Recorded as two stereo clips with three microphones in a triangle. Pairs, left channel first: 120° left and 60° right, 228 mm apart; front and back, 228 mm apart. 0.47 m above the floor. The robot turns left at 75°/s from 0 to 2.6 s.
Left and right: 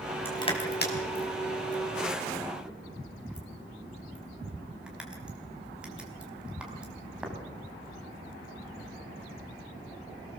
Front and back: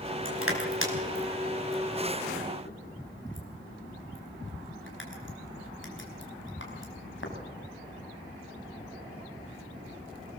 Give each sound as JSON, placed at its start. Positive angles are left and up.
{"t": 0.2, "sound": "crushing", "azimuth_deg": -160, "distance_m": 4.5}